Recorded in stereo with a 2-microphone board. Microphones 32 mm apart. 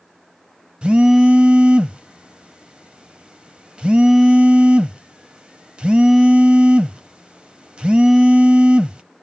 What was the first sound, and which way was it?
A phone buzzing, 30° right (ahead or behind).